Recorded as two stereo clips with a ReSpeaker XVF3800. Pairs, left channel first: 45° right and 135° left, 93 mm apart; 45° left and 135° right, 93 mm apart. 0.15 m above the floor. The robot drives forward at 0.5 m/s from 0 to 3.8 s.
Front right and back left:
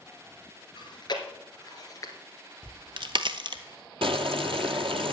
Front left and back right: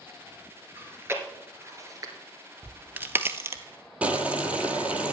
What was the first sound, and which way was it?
Chewing, 70° right.